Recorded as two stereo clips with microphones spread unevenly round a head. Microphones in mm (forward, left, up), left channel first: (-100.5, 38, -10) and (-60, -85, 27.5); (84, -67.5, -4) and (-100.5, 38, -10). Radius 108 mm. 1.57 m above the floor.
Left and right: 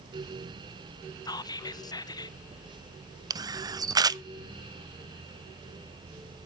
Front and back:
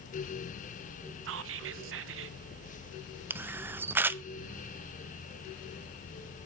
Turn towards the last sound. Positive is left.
turn(degrees=-130)